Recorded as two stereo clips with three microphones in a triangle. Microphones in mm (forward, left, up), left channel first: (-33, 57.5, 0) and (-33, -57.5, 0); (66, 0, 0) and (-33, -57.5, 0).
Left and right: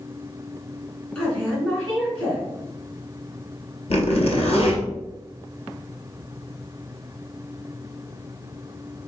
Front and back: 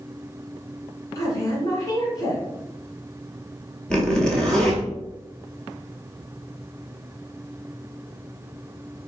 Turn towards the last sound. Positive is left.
turn(degrees=110)